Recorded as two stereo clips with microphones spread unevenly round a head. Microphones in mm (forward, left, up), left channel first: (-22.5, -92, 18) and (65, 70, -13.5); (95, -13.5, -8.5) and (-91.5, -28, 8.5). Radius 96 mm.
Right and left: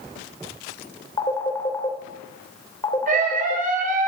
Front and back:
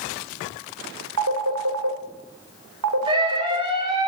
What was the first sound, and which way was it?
A phone ringing, 170° left.